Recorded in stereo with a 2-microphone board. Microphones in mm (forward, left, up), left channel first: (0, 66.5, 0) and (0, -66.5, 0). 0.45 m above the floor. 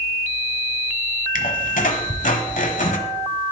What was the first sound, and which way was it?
A squeak, 80° left.